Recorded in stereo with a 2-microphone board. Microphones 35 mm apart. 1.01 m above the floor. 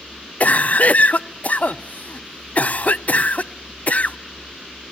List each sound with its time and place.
0.4 s a cough: 50° left (ahead or behind), 0.6 m